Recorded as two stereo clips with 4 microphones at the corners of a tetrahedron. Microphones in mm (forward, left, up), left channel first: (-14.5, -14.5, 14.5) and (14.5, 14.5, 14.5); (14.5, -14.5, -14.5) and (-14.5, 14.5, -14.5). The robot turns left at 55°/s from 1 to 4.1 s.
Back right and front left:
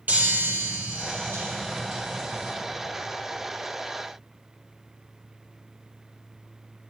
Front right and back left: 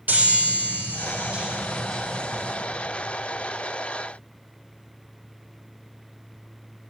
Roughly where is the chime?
Left.